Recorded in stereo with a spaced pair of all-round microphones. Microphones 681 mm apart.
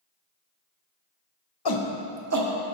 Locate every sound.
1.6 s a shout: 40° left (ahead or behind), 0.6 m; by 2.8 s 50° right (ahead or behind), 0.9 m